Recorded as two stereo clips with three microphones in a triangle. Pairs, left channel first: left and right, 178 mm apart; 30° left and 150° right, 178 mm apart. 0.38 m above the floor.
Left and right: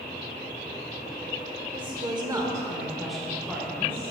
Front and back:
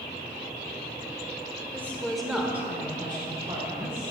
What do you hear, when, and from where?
1.7 s a woman speaking: 45° right, 1.4 m; by 4.1 s 160° left, 1.8 m